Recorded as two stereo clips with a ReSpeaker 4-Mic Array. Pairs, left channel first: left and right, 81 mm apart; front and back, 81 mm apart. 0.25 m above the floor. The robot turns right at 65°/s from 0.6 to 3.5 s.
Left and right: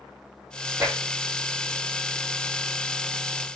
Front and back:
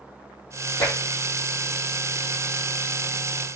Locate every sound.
0.8 s tapping: 35° right, 3.5 m; by 0.9 s 25° right, 3.5 m